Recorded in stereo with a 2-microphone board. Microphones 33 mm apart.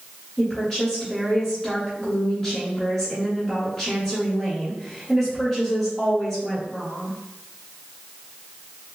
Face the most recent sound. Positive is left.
turn(degrees=20)  # may be behind; listen again after turning